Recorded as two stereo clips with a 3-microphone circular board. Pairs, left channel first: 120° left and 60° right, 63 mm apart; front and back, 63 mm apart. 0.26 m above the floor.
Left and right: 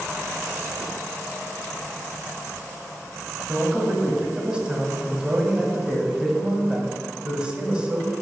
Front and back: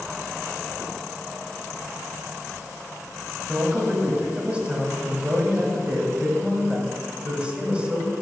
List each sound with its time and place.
3.5 s a man speaking: 120° right, 1.4 m